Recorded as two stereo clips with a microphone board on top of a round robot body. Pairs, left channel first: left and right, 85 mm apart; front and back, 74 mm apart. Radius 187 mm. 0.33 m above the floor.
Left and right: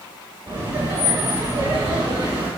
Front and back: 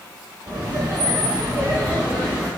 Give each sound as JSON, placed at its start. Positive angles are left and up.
{"t": 0.5, "sound": "laughter", "azimuth_deg": -145, "distance_m": 5.5}